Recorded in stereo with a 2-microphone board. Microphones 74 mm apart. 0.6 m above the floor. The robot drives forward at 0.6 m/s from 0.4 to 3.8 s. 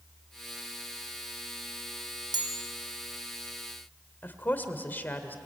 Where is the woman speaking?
25° left (ahead or behind), 1.8 m.